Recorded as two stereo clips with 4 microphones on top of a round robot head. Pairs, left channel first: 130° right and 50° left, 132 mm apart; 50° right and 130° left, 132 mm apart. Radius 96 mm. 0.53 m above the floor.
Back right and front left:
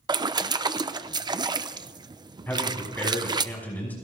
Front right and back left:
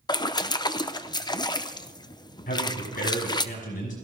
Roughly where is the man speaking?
Ahead right.